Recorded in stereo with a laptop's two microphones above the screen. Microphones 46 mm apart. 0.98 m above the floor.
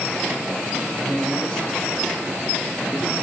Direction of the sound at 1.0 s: 25° left (ahead or behind).